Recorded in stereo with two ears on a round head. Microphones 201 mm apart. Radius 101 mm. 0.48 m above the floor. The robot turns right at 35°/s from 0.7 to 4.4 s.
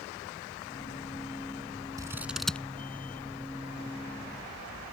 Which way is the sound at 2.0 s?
15° right (ahead or behind).